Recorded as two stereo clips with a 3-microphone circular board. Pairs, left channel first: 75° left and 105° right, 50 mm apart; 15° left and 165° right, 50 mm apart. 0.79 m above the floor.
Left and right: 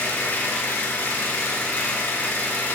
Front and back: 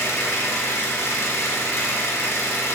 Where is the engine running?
25° left, 1.5 m.